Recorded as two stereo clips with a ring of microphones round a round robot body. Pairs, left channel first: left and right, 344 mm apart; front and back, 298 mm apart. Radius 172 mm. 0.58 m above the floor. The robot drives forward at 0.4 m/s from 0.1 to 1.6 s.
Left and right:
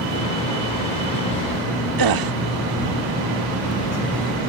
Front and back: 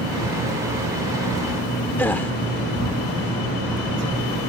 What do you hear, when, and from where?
2.0 s a gasp: 85° right